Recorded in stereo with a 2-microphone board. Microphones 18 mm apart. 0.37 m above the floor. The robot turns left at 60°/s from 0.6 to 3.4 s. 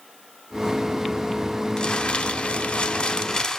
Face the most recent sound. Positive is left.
turn(degrees=30)